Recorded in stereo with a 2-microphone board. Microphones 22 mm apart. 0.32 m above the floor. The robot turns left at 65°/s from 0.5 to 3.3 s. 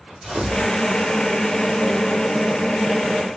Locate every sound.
0.2 s tearing paper: 40° right (ahead or behind), 2 m; by 0.7 s 50° right (ahead or behind), 2 m